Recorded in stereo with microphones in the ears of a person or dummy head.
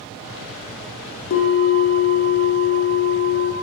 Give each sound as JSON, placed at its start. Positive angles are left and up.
{"t": 1.3, "sound": "a bell", "side_deg": 55, "distance_m": 0.7}